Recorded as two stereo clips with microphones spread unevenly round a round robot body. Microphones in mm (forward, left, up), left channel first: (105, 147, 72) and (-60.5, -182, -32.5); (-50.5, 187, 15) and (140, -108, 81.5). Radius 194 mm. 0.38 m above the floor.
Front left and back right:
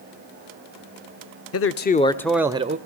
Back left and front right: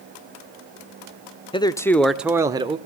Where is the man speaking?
100° left, 0.8 m; by 2.8 s 140° right, 0.9 m.